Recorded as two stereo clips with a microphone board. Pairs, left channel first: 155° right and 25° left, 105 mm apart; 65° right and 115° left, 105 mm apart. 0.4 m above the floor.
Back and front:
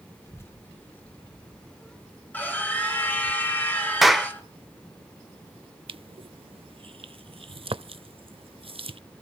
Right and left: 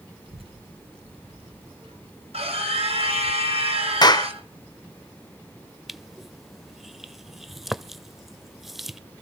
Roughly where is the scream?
Behind left.